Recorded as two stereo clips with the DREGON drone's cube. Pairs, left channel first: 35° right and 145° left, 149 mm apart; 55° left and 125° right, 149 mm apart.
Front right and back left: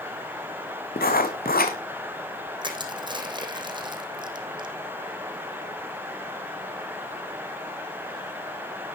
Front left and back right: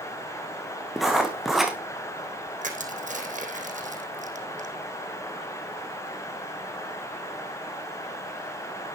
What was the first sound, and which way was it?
Writing, 35° right.